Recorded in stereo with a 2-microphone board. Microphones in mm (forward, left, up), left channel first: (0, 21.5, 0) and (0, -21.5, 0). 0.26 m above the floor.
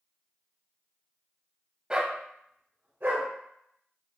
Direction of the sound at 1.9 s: 20° right (ahead or behind).